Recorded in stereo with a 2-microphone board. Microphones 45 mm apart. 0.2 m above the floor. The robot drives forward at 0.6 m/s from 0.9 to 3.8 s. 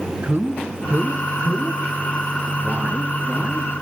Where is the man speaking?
35° right (ahead or behind), 1.7 m; by 3.7 s 20° right (ahead or behind), 3 m.